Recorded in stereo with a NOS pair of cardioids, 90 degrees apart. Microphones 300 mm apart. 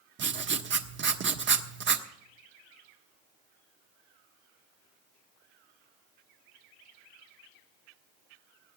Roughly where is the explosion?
I don't hear an explosion.